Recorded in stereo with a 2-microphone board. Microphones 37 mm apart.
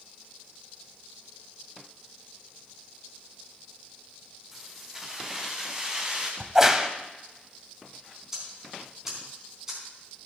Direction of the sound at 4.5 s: 10° right (ahead or behind).